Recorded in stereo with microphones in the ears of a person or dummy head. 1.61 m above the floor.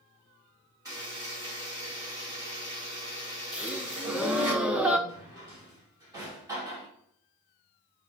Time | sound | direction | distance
0.8 | a buzzer | 15° right (ahead or behind) | 3.5 m
3.5 | a gasp | 10° right (ahead or behind) | 0.7 m
5.1 | a drawer | 15° right (ahead or behind) | 2.5 m